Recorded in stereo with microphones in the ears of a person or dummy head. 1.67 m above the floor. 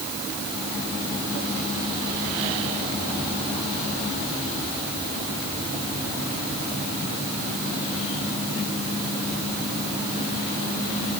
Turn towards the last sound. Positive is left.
No sound to turn to.